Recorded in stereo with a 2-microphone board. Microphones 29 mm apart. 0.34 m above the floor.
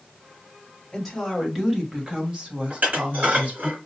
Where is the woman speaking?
5° right (ahead or behind), 2.0 m; by 3.7 s 60° right (ahead or behind), 2 m.